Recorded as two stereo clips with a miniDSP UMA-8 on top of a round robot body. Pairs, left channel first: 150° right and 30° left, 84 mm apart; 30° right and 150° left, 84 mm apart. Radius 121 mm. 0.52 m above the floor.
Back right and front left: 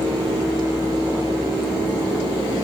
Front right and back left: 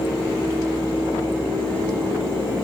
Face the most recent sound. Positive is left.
No sound to turn to.